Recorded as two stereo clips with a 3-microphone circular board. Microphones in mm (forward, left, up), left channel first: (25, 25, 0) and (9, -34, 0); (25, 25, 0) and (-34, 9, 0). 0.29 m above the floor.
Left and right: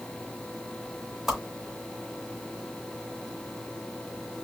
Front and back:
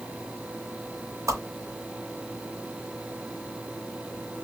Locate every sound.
1.3 s a whoosh: 170° left, 2.5 m